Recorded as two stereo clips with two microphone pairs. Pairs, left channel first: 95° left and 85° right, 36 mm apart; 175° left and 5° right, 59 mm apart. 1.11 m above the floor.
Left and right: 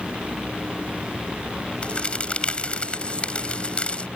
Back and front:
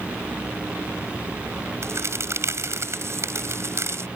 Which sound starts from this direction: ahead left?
A crack, at 1.8 s.